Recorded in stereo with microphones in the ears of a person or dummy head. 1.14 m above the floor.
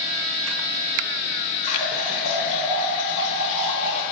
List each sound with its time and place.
1.6 s a running tap: 35° left (ahead or behind), 1.2 m